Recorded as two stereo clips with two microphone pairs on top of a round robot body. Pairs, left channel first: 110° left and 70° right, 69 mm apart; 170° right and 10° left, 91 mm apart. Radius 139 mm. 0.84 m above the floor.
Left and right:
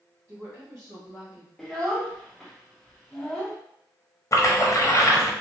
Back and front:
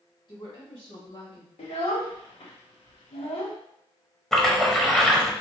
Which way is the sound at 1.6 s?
160° right.